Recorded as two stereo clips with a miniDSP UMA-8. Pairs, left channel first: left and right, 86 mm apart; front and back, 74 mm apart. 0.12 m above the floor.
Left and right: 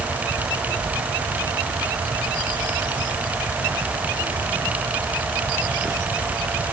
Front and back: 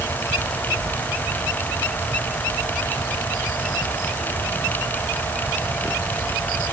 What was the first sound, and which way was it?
Only background noise.